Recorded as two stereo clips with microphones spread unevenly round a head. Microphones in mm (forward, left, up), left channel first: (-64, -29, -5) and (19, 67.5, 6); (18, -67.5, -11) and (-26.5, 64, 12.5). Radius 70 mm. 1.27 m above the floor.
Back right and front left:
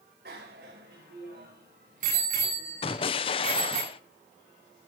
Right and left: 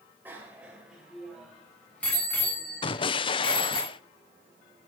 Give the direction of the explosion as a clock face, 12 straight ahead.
3 o'clock.